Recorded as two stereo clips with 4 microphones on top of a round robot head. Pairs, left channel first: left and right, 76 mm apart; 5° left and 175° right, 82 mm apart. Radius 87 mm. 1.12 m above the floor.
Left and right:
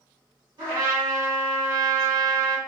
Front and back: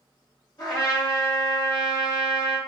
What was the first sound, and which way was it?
A trumpet, 60° right.